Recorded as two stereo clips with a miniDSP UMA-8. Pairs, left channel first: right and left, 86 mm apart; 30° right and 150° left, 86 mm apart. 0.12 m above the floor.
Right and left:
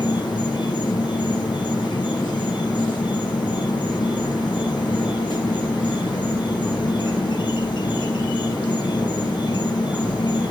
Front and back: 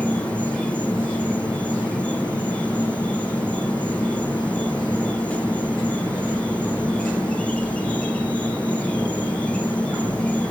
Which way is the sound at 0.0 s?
105° right.